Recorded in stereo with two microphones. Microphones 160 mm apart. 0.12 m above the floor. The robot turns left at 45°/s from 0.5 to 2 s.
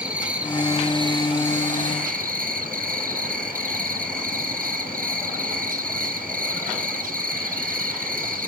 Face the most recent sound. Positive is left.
turn(degrees=-75)